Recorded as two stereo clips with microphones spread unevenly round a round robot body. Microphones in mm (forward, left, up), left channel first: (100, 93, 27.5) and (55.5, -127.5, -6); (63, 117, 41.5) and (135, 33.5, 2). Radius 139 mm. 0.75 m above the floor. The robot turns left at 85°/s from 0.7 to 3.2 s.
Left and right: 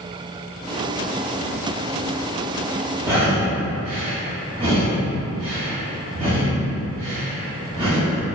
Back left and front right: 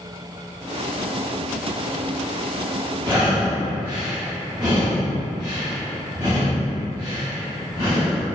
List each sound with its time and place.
3.0 s breathing: 65° right, 1.1 m; by 8.2 s 80° right, 1.1 m